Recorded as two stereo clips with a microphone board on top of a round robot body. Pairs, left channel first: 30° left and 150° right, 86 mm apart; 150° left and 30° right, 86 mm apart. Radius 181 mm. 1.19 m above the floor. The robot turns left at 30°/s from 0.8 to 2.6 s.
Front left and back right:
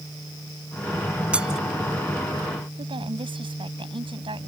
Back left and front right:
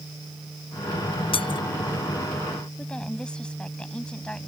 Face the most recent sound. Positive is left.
turn(degrees=-130)